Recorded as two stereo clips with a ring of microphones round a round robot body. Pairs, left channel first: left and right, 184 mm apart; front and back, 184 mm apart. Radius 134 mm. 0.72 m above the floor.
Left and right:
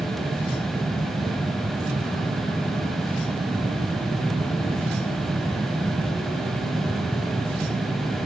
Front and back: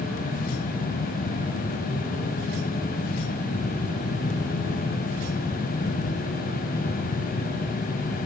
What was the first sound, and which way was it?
Only background noise.